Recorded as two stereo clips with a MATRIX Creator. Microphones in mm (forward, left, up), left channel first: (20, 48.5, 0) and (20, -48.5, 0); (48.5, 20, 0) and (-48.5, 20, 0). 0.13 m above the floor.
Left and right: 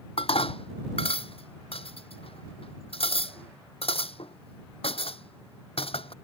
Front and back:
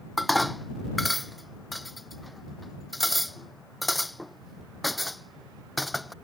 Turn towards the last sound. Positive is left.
turn(degrees=90)